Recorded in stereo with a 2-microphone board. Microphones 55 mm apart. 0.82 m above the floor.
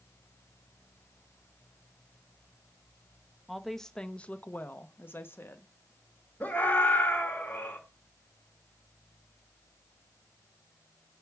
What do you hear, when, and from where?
3.5 s a woman speaking: centre (ahead or behind), 0.8 m; by 5.7 s 45° left (ahead or behind), 1.1 m
6.4 s a scream: 35° left (ahead or behind), 2.5 m